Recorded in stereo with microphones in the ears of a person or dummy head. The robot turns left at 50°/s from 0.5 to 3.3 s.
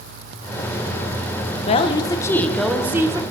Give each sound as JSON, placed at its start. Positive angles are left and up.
{"t": 1.7, "sound": "a woman speaking", "azimuth_deg": 50, "distance_m": 0.6}